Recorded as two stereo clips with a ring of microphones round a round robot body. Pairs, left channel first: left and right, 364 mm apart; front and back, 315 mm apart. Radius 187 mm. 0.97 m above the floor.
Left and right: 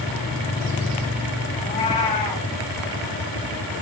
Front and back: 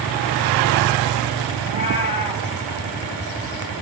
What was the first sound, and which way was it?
A cat meowing, 20° left.